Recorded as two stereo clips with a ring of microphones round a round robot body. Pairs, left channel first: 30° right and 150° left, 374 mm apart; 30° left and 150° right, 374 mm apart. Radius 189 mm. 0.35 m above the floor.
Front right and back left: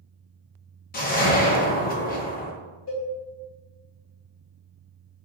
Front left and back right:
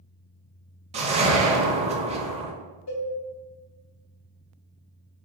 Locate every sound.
0.9 s a whoosh: 85° right, 0.6 m
2.9 s a cowbell: straight ahead, 1.7 m